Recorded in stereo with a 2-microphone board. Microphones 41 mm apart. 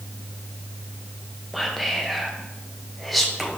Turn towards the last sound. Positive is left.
turn(degrees=0)  # may be behind; listen again after turning